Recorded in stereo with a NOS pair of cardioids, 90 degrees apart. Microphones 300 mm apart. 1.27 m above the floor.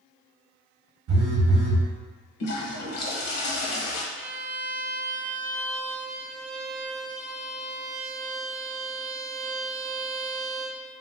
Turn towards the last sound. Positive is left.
turn(degrees=-45)